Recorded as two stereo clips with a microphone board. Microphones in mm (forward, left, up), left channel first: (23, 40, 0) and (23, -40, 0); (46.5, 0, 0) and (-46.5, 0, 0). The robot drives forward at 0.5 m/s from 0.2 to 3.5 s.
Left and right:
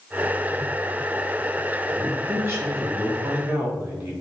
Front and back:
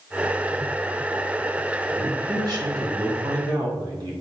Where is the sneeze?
I don't hear a sneeze.